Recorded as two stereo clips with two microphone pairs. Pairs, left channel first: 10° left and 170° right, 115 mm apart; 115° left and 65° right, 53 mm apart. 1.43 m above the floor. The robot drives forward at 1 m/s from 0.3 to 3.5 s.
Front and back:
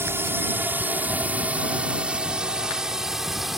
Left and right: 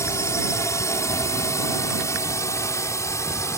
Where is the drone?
125° left; by 3.6 s 105° left.